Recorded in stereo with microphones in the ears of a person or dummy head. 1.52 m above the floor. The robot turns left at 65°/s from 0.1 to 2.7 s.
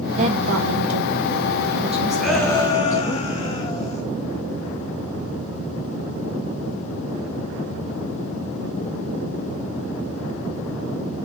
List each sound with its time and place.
0.2 s a woman speaking: 30° right, 1.8 m; by 3.2 s 165° left, 1.8 m
2.2 s a shout: 175° right, 2.5 m; by 4.0 s 155° left, 2.5 m